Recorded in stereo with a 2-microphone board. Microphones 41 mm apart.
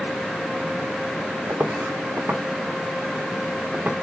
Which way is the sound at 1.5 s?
70° right (ahead or behind).